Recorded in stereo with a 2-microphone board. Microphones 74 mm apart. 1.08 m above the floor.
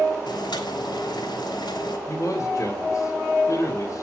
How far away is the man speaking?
About 3.5 m.